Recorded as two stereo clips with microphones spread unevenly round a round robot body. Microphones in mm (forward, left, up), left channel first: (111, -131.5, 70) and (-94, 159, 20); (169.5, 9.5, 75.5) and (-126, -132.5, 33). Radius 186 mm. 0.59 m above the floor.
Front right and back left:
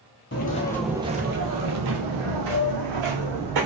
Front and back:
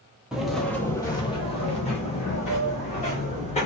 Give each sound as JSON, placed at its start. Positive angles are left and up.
{"t": 0.3, "sound": "footsteps", "azimuth_deg": -55, "distance_m": 0.7}